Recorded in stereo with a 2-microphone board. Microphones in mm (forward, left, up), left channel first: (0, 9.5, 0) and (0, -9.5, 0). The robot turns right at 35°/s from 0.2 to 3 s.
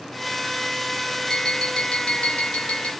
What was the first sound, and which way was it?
Tapping, 30° left.